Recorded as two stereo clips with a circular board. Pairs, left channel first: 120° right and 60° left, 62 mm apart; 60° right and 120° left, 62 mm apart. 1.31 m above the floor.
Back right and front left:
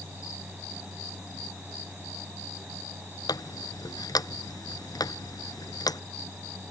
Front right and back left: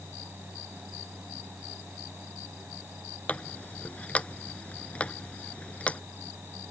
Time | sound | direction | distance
3.3 | a running tap | 130° right | ?